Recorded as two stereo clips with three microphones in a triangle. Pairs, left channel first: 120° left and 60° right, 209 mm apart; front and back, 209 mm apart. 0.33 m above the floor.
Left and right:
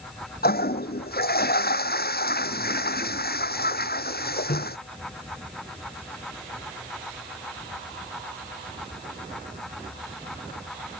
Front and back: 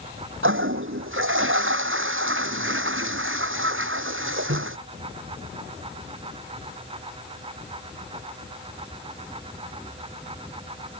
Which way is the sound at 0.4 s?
165° left.